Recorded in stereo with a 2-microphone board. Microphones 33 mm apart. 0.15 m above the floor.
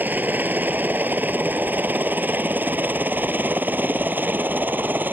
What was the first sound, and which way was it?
A helicopter, 65° right (ahead or behind).